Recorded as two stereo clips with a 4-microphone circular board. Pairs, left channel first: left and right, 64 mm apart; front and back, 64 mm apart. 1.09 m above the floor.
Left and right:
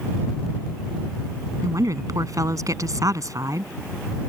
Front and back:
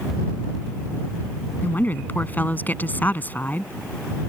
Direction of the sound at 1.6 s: 60° right.